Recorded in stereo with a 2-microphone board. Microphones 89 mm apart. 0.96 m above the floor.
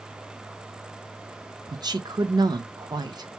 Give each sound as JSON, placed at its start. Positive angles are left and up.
{"t": 1.7, "sound": "a woman speaking", "side_deg": -50, "distance_m": 0.6}